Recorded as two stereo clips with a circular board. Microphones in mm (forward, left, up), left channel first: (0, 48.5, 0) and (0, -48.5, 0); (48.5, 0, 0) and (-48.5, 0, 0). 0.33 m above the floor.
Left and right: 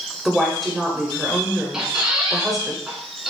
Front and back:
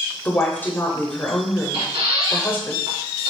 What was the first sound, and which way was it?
A woman speaking, straight ahead.